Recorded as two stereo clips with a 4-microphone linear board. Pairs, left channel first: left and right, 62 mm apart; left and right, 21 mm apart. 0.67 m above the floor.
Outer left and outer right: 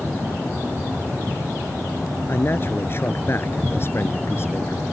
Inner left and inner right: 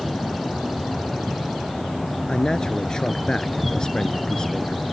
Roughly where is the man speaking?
Left.